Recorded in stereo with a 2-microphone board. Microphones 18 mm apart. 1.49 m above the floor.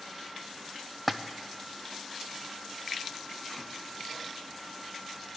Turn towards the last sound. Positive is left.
turn(degrees=0)  # may be behind; listen again after turning